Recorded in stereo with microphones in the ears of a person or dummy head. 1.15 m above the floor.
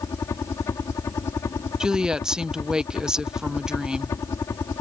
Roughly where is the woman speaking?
Centre.